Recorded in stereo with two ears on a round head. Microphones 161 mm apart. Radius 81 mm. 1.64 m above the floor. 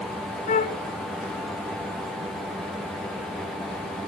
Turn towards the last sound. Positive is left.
turn(degrees=45)  # may be behind; listen again after turning